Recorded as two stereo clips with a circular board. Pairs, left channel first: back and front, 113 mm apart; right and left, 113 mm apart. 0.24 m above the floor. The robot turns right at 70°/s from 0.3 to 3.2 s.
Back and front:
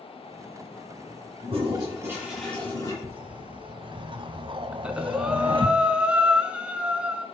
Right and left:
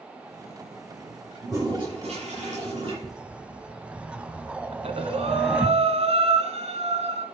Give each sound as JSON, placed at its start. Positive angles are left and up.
{"t": 1.4, "sound": "a toilet flushing", "azimuth_deg": 20, "distance_m": 7.0}
{"t": 3.0, "sound": "a whoosh", "azimuth_deg": 0, "distance_m": 0.9}
{"t": 4.7, "sound": "breathing", "azimuth_deg": 80, "distance_m": 1.3}